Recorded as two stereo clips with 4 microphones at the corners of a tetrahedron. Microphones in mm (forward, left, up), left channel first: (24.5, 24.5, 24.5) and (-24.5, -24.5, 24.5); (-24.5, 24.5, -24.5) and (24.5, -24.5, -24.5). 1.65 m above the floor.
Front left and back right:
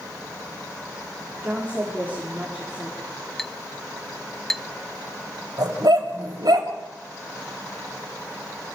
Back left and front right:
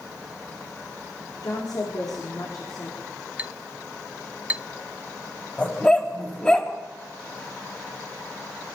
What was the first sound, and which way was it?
A woman speaking, 160° left.